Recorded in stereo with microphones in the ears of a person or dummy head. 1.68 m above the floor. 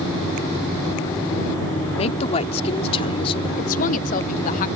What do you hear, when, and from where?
2.0 s a woman speaking: 40° left (ahead or behind); by 3.5 s 35° left (ahead or behind)
3.6 s a woman speaking: 50° left (ahead or behind)